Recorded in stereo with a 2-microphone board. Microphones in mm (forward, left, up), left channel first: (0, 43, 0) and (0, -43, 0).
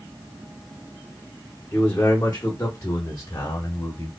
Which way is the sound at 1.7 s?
25° left (ahead or behind).